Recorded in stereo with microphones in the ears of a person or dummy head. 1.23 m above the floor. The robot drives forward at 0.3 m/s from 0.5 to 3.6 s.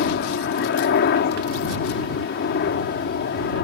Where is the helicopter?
55° left (ahead or behind); by 3.6 s 50° left (ahead or behind).